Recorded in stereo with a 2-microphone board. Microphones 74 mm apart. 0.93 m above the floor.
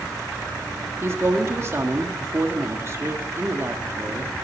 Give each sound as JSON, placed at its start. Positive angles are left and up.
{"t": 1.0, "sound": "a woman speaking", "side_deg": -35, "distance_m": 1.6}